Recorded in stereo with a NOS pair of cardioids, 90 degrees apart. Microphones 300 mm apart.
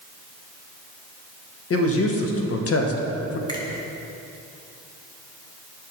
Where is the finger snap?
15° left, 1.7 m.